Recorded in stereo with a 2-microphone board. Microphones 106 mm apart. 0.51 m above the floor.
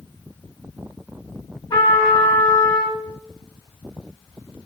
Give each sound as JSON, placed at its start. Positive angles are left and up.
{"t": 1.7, "sound": "a trumpet", "side_deg": 50, "distance_m": 2.0}